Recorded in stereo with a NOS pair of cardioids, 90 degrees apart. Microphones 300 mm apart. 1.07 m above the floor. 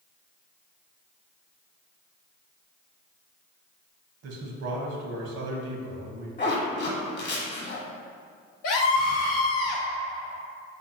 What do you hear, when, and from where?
4.2 s a man speaking: 60° right, 0.9 m
6.4 s a zipper: 40° left, 1.2 m
8.6 s a scream: 65° left, 0.6 m